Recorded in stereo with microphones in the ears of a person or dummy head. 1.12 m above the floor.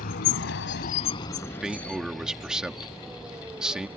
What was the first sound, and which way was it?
A vehicle, 55° left (ahead or behind).